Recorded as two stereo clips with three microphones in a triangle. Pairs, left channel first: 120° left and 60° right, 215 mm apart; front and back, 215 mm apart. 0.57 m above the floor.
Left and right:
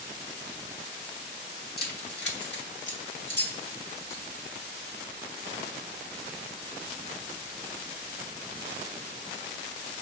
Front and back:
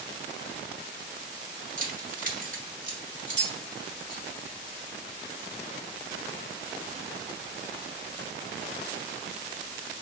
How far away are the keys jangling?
About 1.0 m.